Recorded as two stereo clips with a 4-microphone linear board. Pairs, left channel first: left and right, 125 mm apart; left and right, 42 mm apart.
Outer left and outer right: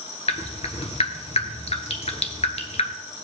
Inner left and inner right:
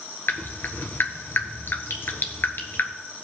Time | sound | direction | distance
0.3 | dripping | 60° left (ahead or behind) | 1.2 m